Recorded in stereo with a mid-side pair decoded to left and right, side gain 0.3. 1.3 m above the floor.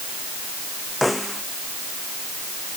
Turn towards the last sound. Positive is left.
turn(degrees=10)